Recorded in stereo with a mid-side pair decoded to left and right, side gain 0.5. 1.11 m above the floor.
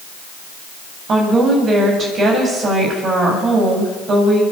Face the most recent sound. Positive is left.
turn(degrees=-45)